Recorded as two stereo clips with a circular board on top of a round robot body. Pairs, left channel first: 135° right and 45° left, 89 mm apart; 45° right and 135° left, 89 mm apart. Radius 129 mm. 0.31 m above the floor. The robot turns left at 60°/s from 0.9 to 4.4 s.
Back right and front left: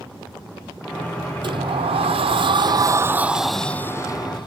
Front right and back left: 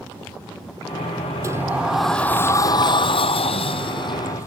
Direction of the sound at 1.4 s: 80° left.